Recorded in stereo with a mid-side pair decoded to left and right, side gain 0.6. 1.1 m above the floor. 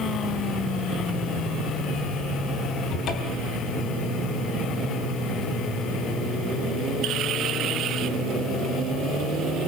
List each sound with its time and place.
2.9 s a cupboard door: 60° left, 3.5 m